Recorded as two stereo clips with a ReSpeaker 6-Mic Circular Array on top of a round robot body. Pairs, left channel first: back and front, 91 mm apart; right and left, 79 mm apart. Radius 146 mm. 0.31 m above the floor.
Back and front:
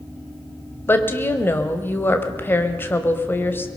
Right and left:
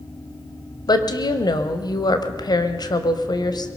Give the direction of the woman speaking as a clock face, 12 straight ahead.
4 o'clock.